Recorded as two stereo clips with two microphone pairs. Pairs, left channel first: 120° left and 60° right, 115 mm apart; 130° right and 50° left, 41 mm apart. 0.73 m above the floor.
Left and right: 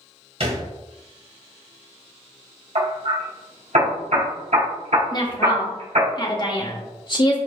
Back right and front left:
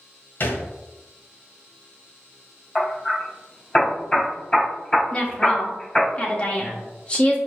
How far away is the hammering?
About 3 m.